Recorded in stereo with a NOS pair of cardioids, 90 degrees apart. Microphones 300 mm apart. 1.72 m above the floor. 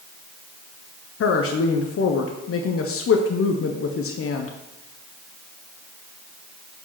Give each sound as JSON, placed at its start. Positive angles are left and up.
{"t": 1.2, "sound": "a woman speaking", "azimuth_deg": 45, "distance_m": 1.1}